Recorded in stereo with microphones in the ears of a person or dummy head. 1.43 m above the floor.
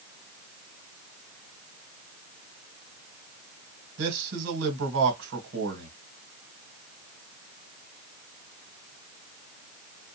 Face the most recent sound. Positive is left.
turn(degrees=-70)  # may be behind; listen again after turning